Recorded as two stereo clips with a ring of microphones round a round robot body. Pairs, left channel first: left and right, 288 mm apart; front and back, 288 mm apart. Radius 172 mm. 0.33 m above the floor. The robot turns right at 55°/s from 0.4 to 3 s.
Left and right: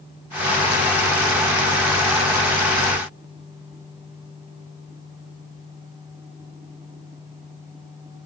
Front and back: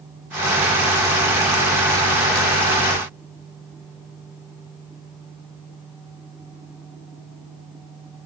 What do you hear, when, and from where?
Only background noise.